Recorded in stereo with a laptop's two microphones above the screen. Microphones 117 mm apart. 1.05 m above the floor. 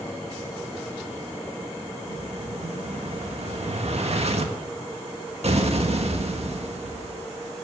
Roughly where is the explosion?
Right.